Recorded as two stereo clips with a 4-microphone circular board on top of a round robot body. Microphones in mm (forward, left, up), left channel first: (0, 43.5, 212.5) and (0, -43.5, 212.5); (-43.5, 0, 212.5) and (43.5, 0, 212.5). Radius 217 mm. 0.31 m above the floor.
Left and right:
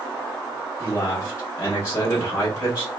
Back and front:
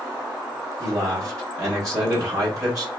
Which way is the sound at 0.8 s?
35° left.